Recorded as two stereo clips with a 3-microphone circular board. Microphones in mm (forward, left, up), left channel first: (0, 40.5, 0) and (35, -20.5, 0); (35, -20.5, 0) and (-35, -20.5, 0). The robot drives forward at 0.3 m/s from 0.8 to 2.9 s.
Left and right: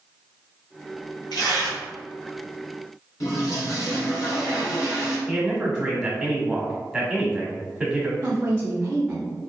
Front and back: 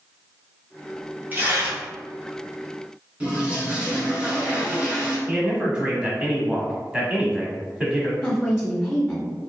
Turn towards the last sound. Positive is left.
turn(degrees=-65)